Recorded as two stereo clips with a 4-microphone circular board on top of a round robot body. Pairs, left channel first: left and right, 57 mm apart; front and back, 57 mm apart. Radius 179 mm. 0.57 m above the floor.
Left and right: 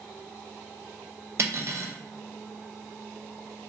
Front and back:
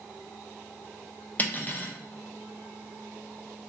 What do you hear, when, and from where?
1.4 s cutlery clinking: 55° right, 0.7 m